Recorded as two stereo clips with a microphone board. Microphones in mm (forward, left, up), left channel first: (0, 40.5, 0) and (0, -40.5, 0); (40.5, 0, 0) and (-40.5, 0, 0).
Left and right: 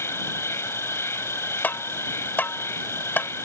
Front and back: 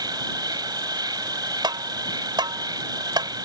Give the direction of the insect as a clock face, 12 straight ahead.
7 o'clock.